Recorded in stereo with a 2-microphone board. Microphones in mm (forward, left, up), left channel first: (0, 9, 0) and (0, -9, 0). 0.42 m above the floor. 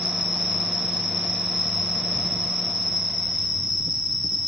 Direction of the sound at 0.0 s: 20° right (ahead or behind).